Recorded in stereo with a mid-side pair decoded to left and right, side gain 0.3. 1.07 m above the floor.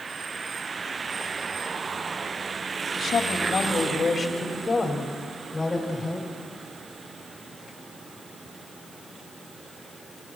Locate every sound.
3.0 s a woman speaking: 60° left, 2.5 m; by 6.3 s 15° left, 4.5 m